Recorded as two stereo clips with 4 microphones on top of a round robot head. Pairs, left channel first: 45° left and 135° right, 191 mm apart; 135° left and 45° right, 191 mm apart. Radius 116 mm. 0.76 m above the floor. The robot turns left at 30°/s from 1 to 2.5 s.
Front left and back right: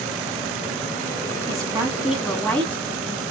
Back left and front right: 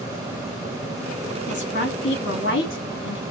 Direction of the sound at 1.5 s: 155° left.